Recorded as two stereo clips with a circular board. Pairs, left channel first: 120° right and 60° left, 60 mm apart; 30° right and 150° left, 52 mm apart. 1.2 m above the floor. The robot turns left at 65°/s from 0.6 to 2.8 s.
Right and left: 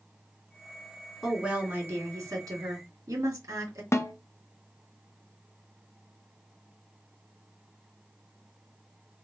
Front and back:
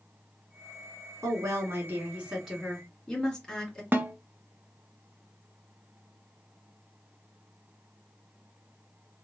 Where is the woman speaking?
150° left, 2.0 m; by 3.8 s 50° left, 2.0 m.